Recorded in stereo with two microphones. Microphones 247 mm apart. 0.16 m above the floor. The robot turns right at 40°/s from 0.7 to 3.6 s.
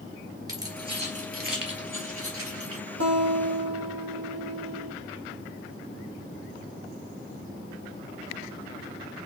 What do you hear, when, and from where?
0.5 s keys jangling: 15° right (ahead or behind), 2 m; by 2.8 s 65° right (ahead or behind), 2 m
3.0 s a guitar: 65° right (ahead or behind), 2.5 m